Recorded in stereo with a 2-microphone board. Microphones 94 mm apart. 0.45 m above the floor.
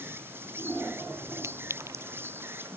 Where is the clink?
30° right (ahead or behind).